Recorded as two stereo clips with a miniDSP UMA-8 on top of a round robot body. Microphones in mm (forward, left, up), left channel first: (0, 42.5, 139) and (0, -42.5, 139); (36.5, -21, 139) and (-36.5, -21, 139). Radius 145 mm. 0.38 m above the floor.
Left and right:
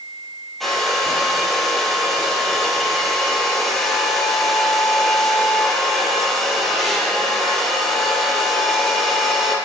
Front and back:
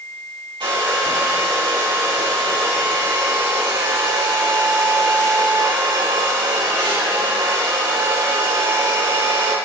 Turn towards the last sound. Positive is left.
turn(degrees=175)